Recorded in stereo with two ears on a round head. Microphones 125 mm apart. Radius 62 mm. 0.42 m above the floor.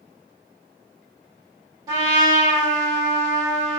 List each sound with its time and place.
1.9 s a trumpet: 30° right (ahead or behind), 1.5 m